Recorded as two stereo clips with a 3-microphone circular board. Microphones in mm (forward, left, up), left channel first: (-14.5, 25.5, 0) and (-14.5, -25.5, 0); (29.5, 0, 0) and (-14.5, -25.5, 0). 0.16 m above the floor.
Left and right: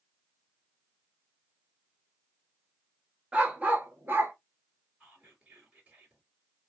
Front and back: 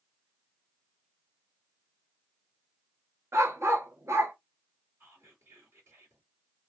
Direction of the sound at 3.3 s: 155° right.